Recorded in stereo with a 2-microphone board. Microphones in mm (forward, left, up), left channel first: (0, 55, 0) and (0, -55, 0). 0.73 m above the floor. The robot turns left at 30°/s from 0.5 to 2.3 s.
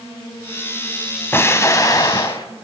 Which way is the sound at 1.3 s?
20° left (ahead or behind).